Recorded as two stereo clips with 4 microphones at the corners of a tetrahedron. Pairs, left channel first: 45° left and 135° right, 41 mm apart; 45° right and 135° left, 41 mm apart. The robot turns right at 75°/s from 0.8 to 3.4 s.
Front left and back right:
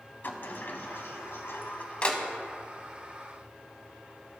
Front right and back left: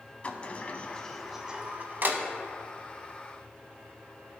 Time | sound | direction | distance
0.2 | a sliding door | 15° left | 0.8 m